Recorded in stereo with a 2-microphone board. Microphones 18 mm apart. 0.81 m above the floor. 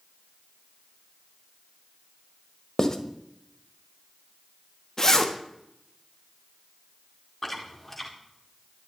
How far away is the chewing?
About 2.0 m.